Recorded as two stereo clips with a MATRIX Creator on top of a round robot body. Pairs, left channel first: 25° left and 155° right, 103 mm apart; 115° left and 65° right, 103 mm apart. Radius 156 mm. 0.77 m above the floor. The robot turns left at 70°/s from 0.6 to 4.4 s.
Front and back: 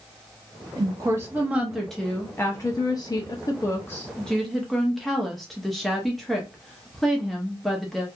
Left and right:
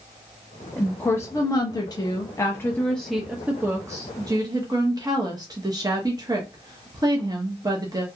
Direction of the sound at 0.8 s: 170° right.